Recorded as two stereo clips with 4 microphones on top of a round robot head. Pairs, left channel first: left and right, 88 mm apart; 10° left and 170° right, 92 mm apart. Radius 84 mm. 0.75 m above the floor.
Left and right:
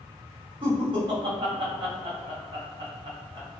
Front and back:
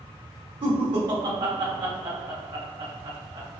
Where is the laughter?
130° right, 1.9 m.